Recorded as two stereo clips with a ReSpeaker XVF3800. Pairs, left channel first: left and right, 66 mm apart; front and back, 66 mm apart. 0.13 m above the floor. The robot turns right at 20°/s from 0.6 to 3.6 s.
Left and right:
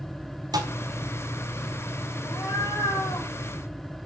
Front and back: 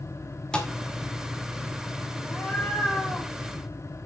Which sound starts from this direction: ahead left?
A cat meowing, at 2.2 s.